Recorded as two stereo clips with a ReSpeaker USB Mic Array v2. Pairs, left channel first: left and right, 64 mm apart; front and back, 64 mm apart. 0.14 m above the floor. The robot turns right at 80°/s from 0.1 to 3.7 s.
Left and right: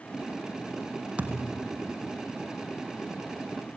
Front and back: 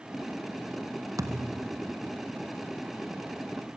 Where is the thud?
160° right, 1.6 m; by 1.7 s 120° right, 1.6 m.